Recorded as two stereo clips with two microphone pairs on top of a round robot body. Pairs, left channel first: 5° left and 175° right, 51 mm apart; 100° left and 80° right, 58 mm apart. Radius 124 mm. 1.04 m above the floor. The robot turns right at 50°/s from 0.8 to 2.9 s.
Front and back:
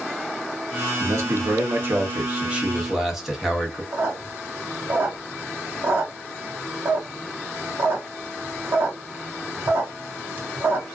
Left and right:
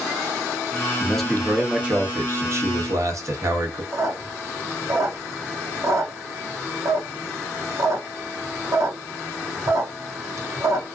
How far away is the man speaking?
About 1.2 m.